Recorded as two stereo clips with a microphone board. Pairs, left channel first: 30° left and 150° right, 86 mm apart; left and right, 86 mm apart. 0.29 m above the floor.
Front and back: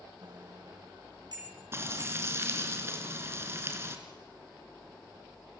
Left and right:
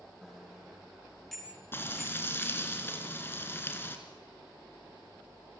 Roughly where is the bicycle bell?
Behind.